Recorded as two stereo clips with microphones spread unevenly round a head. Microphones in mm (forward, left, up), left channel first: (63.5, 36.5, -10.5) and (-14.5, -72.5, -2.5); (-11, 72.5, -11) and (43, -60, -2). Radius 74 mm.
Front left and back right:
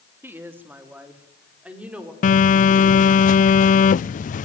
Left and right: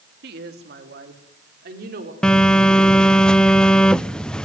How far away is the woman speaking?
About 3 m.